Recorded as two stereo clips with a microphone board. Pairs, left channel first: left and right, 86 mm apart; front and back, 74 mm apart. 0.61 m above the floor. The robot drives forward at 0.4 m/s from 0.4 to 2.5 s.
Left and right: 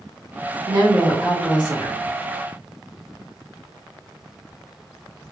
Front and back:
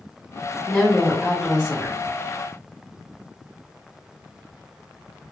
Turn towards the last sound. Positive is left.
turn(degrees=-115)